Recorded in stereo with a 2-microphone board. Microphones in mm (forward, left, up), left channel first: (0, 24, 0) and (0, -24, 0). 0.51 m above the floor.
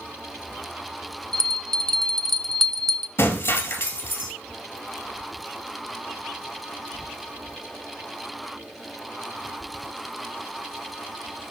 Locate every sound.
1.3 s a bell: 5° left (ahead or behind), 0.7 m
3.2 s breaking glass: 60° left (ahead or behind), 1.9 m